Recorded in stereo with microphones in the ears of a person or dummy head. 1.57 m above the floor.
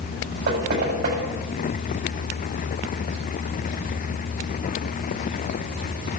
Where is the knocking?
65° right (ahead or behind), 7.5 m.